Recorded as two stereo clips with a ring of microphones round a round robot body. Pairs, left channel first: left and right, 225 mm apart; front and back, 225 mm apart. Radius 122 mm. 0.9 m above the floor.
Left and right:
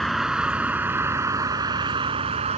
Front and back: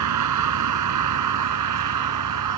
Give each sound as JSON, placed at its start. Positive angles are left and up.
{"t": 0.0, "sound": "a vehicle", "azimuth_deg": 180}